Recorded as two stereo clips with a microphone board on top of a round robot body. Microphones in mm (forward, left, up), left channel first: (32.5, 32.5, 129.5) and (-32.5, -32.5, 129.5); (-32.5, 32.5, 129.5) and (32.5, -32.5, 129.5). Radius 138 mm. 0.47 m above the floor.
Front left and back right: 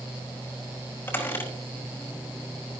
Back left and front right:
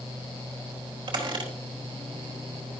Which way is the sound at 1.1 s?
20° right.